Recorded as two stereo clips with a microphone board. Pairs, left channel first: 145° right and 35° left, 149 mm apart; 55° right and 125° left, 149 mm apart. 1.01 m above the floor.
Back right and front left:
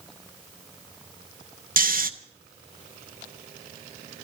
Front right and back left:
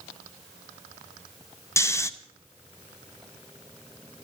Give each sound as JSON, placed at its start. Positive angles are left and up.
{"t": 1.8, "sound": "snoring", "azimuth_deg": 15, "distance_m": 0.8}